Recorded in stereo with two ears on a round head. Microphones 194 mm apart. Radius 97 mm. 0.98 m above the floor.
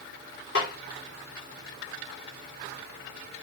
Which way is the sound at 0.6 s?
55° left (ahead or behind).